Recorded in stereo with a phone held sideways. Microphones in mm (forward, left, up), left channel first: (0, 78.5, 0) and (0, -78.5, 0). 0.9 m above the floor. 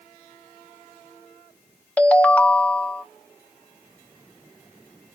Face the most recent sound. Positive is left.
turn(degrees=10)  # may be behind; listen again after turning